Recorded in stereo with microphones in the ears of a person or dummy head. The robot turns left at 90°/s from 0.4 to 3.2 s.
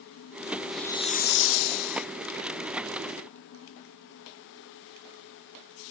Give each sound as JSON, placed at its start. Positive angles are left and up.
{"t": 0.7, "sound": "a hiss", "azimuth_deg": 180}